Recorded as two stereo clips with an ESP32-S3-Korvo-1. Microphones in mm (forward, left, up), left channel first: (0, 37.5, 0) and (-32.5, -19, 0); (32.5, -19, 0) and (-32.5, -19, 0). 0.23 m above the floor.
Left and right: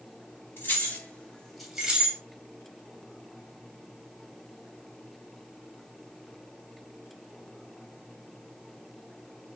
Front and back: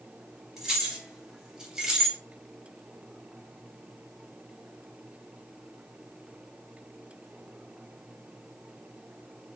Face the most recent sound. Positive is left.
turn(degrees=-110)